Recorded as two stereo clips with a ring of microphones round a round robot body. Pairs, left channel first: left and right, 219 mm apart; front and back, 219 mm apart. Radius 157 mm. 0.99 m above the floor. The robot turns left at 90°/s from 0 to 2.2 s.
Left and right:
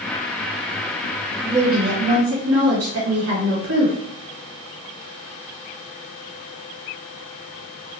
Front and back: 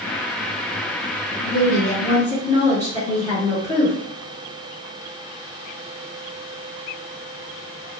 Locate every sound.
1.4 s a woman speaking: 15° right, 1.1 m; by 4.0 s 85° right, 1.1 m